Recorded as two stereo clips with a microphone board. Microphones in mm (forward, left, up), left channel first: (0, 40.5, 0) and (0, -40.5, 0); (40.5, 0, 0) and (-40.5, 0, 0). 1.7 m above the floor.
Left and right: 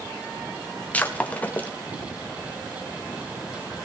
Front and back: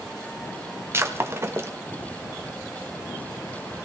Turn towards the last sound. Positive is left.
turn(degrees=150)